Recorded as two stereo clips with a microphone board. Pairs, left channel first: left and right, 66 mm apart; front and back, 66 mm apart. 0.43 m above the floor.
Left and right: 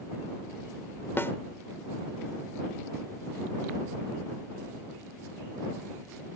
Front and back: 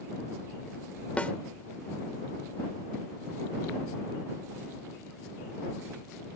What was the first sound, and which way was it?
A snare drum, 60° left.